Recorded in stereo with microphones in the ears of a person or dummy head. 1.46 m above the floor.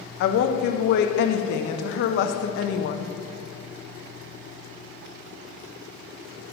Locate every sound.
0.2 s a woman speaking: 60° left (ahead or behind), 0.6 m